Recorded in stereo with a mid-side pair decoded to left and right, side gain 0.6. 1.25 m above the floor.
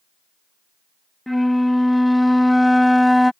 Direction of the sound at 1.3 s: 5° left.